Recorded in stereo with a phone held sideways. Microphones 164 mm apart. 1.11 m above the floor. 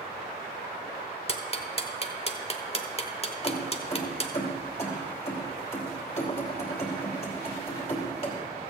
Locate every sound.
1.3 s ticking: 35° left (ahead or behind), 1.0 m
3.4 s keys jangling: 40° left (ahead or behind), 2 m